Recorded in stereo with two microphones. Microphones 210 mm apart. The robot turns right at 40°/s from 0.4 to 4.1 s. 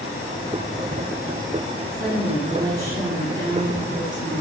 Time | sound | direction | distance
1.9 | a woman speaking | 50° right | 4 m